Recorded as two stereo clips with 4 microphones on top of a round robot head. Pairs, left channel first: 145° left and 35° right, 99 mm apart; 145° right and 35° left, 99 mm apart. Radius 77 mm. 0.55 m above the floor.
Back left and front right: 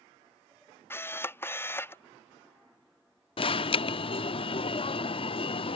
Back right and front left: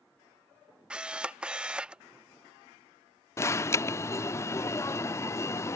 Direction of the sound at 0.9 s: 105° left.